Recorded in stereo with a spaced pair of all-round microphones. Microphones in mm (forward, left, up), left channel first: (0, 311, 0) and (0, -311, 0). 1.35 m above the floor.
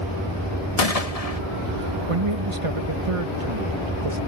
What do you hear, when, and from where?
0.8 s a gunshot: 70° left (ahead or behind)
2.1 s a man speaking: 55° right (ahead or behind)